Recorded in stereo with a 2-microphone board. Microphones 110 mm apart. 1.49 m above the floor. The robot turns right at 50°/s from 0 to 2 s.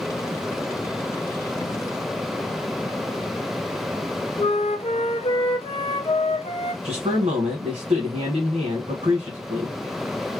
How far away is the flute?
About 0.7 m.